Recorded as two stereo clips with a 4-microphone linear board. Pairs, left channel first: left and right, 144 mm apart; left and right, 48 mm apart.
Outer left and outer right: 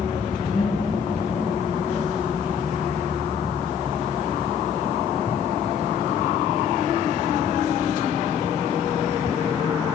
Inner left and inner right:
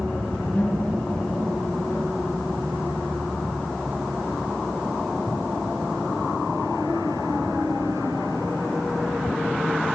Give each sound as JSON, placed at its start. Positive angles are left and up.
{"t": 0.5, "sound": "laughter", "side_deg": 60, "distance_m": 3.5}